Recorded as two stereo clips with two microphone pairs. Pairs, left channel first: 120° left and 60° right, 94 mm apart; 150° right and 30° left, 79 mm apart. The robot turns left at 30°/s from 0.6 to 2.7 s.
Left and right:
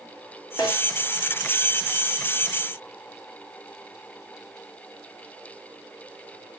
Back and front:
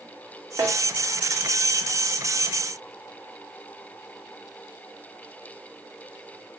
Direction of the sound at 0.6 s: 85° left.